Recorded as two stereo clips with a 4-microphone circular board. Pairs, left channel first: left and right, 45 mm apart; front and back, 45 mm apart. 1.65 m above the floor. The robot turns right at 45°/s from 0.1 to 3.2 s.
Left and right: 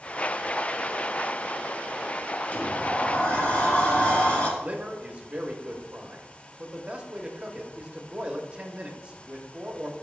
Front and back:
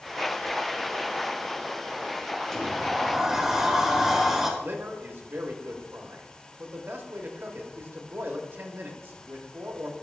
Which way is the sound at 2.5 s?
75° left.